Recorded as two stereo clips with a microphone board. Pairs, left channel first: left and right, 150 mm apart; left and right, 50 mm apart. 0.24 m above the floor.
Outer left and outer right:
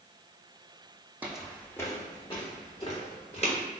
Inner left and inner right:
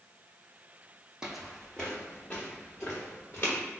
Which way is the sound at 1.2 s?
10° right (ahead or behind).